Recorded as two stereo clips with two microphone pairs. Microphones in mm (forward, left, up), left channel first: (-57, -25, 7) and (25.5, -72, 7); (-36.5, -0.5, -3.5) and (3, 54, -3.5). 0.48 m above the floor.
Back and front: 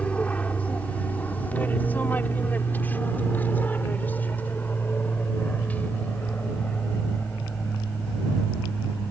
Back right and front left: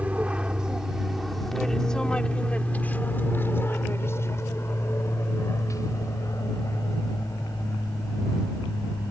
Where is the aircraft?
90° left; by 9.1 s 135° right.